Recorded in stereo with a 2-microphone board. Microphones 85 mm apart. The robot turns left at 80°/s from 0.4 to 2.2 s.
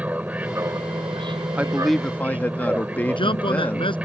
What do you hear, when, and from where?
0.0 s an aircraft: 20° right; by 4.1 s 165° right
1.6 s a man speaking: 155° right; by 4.0 s 155° left
3.1 s a man speaking: 80° left